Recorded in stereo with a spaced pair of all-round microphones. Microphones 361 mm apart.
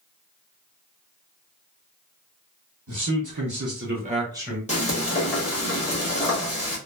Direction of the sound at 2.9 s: 55° right (ahead or behind).